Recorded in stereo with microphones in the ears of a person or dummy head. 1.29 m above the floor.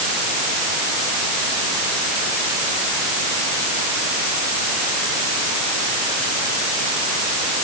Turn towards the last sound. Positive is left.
No sound to turn to.